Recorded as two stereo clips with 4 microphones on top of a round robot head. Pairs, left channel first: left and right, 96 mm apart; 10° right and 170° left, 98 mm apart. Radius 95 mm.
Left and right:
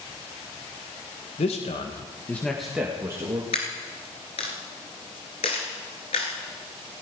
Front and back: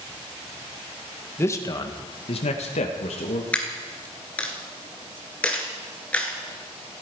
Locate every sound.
1.4 s a man speaking: 60° left, 1.7 m; by 3.4 s 25° right, 2.5 m
3.5 s a dropped coin: 65° left, 2.0 m